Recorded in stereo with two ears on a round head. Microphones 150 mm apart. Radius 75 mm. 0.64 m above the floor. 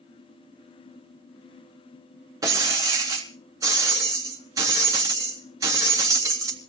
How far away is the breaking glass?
About 3 m.